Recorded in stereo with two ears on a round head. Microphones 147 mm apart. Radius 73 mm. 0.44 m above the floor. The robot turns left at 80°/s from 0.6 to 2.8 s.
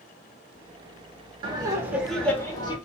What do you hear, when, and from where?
1.4 s laughter: 125° right, 0.9 m; by 2.8 s 130° left, 0.9 m